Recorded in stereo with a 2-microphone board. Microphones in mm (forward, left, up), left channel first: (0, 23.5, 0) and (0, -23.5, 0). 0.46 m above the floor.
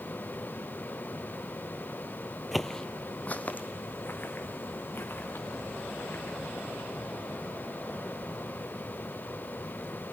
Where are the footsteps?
5° right (ahead or behind), 0.6 m; by 6.9 s 50° left (ahead or behind), 4.5 m.